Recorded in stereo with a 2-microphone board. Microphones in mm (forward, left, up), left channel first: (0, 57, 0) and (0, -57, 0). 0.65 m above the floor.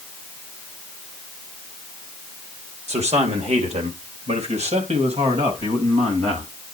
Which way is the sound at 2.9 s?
75° right (ahead or behind).